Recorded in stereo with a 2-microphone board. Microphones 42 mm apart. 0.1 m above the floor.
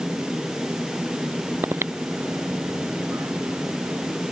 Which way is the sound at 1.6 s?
65° right (ahead or behind).